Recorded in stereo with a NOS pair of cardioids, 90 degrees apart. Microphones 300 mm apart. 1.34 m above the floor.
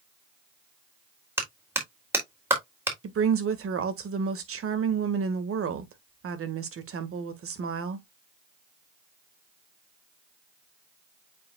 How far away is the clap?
About 3.5 m.